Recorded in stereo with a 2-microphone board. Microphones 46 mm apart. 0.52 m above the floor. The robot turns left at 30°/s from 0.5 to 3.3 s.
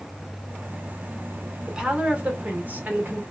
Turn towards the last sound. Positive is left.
turn(degrees=-65)